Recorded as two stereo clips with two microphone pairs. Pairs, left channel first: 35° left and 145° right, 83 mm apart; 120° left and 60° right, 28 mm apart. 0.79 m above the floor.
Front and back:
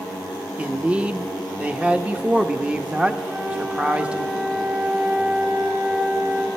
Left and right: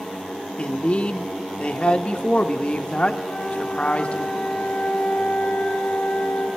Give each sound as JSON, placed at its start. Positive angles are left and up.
{"t": 0.6, "sound": "a man speaking", "azimuth_deg": 140, "distance_m": 0.6}
{"t": 3.2, "sound": "a flute", "azimuth_deg": 155, "distance_m": 2.5}